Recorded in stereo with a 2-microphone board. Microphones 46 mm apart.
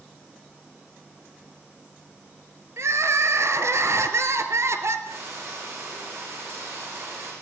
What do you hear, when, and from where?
2.8 s crying: 70° right (ahead or behind), 2.5 m
5.1 s frying: 80° right, 9.5 m